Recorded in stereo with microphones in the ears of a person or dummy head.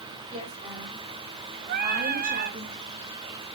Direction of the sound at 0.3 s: 35° right (ahead or behind).